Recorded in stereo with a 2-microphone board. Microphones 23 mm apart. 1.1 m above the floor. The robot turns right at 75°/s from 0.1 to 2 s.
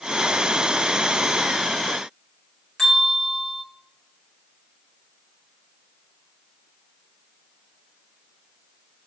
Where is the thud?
No thud in this recording.